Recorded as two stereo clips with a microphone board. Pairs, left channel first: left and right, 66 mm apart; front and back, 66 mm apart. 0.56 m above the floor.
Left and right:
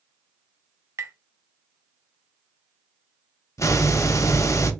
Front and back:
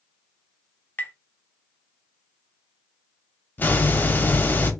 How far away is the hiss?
About 0.5 m.